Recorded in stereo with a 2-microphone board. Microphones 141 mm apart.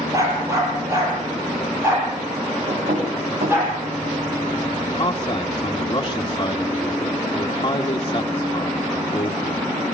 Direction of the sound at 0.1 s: 25° right (ahead or behind).